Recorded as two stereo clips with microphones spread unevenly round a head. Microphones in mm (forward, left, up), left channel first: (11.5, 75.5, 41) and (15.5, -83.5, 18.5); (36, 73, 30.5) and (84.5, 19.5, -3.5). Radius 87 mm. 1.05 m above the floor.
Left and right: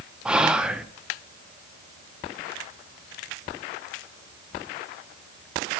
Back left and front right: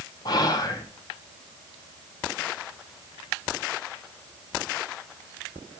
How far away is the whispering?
About 0.5 m.